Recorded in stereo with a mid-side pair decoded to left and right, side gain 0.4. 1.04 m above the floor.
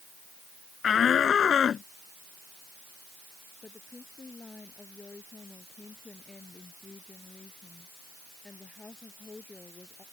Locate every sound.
0.8 s a shout: 60° left; by 1.9 s 55° left
3.6 s a woman speaking: 30° left